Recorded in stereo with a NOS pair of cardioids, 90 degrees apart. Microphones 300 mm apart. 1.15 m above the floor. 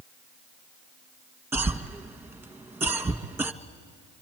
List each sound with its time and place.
1.5 s a cough: 10° right, 1.5 m